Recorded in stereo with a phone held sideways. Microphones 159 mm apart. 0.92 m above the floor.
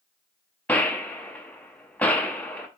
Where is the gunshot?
10° left (ahead or behind), 0.7 m.